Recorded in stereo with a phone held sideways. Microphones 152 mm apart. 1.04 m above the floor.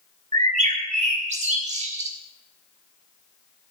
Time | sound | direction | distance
0.3 | a bird | 55° right (ahead or behind) | 3 m